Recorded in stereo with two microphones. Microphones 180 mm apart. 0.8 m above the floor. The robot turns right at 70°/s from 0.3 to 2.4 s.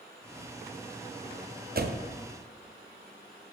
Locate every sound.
1.8 s a door slam: 55° right (ahead or behind), 0.5 m; by 2.1 s 80° right, 0.5 m